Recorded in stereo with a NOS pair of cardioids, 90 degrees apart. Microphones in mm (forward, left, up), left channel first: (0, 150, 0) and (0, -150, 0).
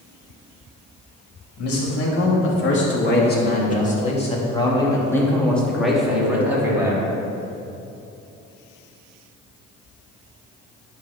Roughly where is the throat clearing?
No throat clearing in this recording.